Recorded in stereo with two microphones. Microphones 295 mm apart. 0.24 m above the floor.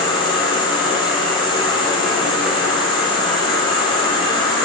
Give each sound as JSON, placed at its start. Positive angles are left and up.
{"t": 0.0, "sound": "an insect", "side_deg": 15, "distance_m": 1.8}